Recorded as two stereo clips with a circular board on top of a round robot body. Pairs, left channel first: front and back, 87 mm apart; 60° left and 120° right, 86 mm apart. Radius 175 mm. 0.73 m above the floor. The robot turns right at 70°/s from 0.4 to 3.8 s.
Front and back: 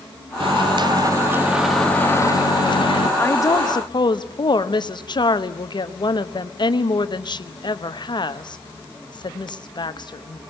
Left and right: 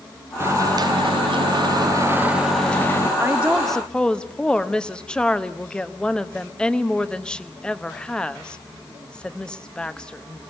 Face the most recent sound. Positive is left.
turn(degrees=-20)